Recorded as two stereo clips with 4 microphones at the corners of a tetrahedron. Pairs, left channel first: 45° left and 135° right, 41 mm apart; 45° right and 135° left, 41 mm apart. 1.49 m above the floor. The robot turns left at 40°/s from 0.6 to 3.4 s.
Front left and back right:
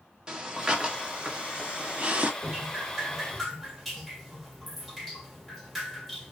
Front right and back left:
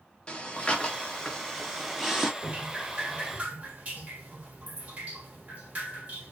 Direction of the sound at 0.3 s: 80° right.